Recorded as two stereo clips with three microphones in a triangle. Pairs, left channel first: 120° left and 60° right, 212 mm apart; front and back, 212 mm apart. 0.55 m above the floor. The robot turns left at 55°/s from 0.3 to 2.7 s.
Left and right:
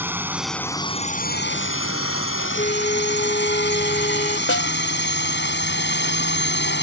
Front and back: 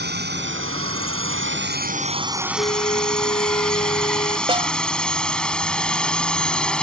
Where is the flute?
70° left; by 4.4 s 65° left.